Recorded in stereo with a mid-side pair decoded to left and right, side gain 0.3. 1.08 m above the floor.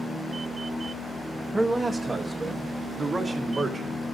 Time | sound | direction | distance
1.5 | a man speaking | 25° right | 0.6 m